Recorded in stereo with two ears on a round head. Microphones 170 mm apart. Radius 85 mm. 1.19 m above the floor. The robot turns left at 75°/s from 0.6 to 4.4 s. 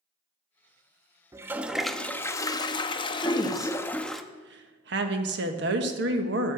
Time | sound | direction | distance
1.3 | a toilet flushing | 15° right (ahead or behind) | 0.6 m
3.2 | a woman speaking | 25° left | 1.3 m